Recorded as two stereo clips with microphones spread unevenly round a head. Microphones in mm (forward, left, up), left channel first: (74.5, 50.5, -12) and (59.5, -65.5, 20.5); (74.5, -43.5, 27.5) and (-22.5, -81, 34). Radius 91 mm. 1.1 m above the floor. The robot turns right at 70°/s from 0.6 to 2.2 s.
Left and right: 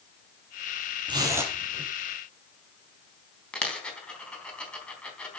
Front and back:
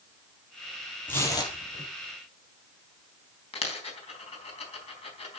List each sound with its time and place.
1.1 s tearing paper: 55° right, 5 m; by 1.9 s 5° left, 5 m
3.5 s a dropped coin: straight ahead, 3.5 m